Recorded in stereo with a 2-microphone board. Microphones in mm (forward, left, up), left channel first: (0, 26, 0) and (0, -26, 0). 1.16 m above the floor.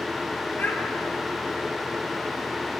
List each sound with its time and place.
0.6 s a child speaking: 40° left (ahead or behind), 1.0 m